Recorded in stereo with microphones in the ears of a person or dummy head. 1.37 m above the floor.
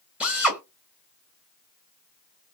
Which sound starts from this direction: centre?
A drill, at 0.2 s.